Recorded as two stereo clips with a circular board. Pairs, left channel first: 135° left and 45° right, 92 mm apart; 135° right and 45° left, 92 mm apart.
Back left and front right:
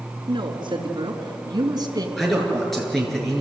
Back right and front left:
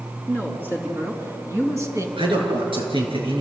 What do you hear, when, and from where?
0.3 s a woman speaking: 20° right, 4 m; by 2.1 s 5° right, 3.5 m
2.2 s a man speaking: 45° left, 6 m